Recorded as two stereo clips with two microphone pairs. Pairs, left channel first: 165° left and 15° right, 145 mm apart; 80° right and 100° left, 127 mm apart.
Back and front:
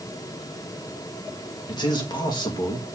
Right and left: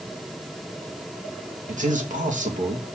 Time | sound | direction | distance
1.7 | a man speaking | 105° left | 1.8 m